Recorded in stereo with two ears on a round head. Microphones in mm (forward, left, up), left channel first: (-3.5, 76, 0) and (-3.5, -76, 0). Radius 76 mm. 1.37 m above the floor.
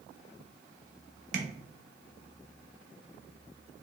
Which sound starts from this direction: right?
Tapping, at 1.3 s.